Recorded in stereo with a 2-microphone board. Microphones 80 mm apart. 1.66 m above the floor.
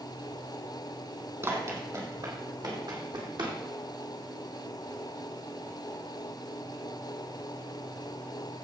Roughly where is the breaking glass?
No breaking glass in this recording.